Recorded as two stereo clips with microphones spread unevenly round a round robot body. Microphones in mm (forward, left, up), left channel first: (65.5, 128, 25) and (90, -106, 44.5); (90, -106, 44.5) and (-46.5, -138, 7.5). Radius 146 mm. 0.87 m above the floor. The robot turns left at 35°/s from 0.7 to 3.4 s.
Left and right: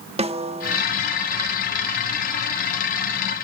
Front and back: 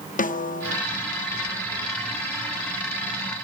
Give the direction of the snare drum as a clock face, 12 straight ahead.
1 o'clock.